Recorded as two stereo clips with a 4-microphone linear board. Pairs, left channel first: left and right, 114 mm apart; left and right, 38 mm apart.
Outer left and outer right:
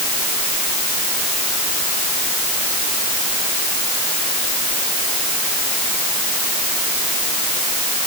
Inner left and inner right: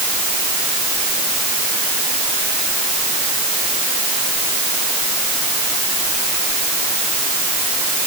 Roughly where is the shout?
I don't hear a shout.